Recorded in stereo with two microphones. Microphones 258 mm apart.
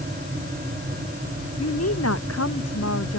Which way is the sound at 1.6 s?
70° left (ahead or behind).